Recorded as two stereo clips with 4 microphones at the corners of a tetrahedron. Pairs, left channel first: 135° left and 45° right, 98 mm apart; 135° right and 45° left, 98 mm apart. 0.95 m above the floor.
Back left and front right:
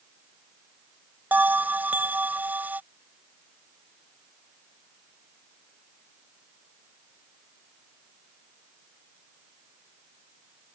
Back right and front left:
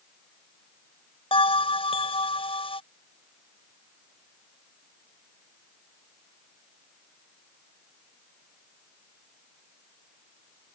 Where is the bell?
115° right.